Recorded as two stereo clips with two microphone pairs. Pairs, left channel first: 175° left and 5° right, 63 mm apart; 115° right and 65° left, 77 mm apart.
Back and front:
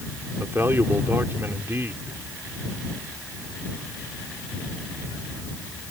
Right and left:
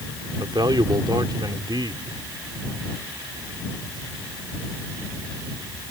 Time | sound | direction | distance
0.4 | a man speaking | 45° left | ?